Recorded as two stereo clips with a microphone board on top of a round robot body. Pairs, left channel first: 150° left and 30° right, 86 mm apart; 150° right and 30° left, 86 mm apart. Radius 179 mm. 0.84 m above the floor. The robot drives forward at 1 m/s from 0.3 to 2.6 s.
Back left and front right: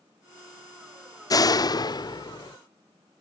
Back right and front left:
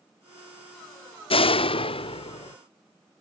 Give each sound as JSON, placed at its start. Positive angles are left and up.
{"t": 1.3, "sound": "a door slam", "azimuth_deg": -160}